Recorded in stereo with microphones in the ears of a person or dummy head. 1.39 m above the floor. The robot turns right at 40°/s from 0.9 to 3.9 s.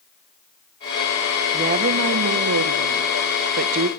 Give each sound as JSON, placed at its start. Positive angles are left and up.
{"t": 1.5, "sound": "a woman speaking", "azimuth_deg": -150, "distance_m": 1.1}